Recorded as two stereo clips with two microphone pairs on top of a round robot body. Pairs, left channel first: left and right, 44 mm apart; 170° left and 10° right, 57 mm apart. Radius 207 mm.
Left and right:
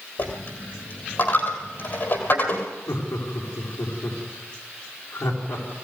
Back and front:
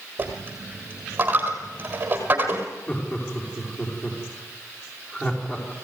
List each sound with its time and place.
0.2 s a dropped coin: 45° left, 1.6 m
2.9 s laughter: 110° left, 4.5 m